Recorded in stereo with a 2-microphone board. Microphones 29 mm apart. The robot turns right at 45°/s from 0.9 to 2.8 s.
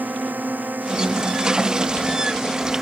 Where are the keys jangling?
I don't hear keys jangling.